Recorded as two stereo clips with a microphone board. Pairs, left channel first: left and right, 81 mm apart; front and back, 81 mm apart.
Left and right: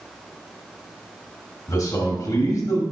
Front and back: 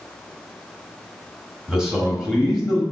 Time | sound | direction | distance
1.7 | a man speaking | 100° left | 1.7 m